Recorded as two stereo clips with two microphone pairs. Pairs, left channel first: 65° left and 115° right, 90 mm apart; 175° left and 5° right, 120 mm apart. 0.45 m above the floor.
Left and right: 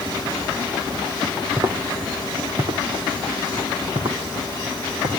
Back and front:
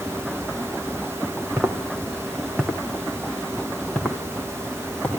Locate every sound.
1.6 s footsteps: 80° right, 2.5 m; by 5.2 s 110° right, 5 m